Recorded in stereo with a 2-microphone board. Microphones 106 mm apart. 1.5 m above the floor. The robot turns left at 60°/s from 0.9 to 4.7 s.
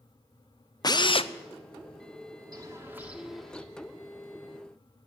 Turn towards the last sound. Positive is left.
turn(degrees=100)